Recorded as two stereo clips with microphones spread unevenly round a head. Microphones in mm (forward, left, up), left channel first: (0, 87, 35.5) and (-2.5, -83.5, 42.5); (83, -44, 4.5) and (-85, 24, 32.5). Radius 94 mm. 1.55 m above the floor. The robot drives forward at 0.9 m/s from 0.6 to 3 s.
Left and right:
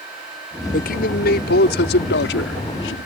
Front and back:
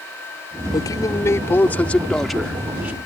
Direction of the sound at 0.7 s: 50° left.